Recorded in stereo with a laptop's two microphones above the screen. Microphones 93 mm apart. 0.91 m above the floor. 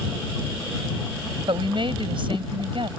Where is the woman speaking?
65° right (ahead or behind).